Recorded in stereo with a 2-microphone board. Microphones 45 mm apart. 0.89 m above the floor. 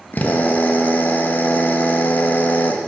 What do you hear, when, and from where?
0.1 s a drill: 40° left (ahead or behind), 0.7 m